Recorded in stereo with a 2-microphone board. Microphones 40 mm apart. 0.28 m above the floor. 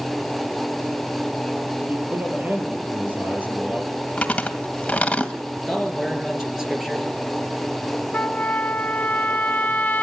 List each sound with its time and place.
1.9 s a man speaking: 50° right (ahead or behind), 7 m
4.2 s chewing: 35° left (ahead or behind), 1.8 m
5.7 s a man speaking: 10° right (ahead or behind), 4.5 m
8.1 s a trumpet: 50° left (ahead or behind), 0.7 m